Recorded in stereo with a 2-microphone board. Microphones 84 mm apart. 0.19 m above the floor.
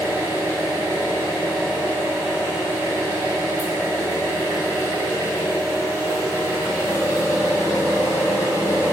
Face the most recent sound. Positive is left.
turn(degrees=25)  # may be behind; listen again after turning